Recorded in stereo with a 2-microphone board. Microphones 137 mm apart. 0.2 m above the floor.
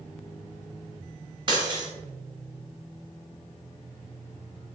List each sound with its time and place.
1.5 s breaking glass: 35° right (ahead or behind), 1.2 m